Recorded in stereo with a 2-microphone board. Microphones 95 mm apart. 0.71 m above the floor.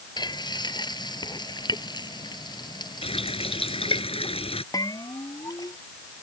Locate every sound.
0.2 s frying: 45° left (ahead or behind)
3.0 s a running tap: 70° left (ahead or behind)
4.7 s a bell: 40° left (ahead or behind)